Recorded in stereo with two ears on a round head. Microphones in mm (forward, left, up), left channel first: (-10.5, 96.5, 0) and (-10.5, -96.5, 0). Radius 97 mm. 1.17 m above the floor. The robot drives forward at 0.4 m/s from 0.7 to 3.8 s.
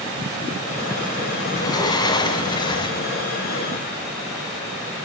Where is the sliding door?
20° left (ahead or behind), 2 m; by 3.0 s 25° left (ahead or behind), 1.5 m.